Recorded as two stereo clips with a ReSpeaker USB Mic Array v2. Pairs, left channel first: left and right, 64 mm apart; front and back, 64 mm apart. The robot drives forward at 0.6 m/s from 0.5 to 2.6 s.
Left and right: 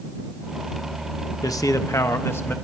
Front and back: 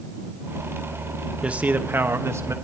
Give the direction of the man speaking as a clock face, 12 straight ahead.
8 o'clock.